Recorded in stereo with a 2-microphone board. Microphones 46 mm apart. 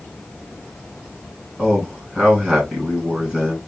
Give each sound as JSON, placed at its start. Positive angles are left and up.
{"t": 1.6, "sound": "a man speaking", "side_deg": -20, "distance_m": 3.5}